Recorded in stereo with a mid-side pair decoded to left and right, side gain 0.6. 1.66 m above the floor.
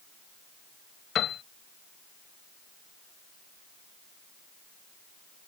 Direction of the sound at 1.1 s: 50° left.